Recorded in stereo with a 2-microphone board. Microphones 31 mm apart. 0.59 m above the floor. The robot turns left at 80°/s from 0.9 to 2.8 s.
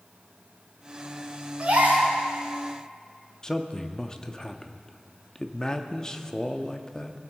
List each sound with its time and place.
1.6 s a gasp: 45° right, 4.5 m; by 2.1 s 85° right, 4.5 m
3.4 s a man speaking: 20° left (ahead or behind), 0.6 m